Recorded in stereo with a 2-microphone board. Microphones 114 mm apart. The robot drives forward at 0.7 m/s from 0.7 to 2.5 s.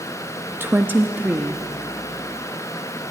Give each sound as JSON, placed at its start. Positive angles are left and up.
{"t": 0.6, "sound": "a woman speaking", "side_deg": -20, "distance_m": 0.8}